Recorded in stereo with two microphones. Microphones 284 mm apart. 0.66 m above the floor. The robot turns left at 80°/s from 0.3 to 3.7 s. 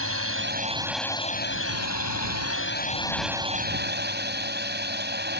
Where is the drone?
125° right; by 5.4 s 40° right.